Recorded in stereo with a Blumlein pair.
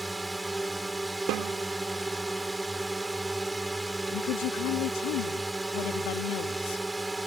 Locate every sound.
0.0 s a drone: 5° right
1.3 s a snare drum: 40° right
4.1 s a woman speaking: 40° left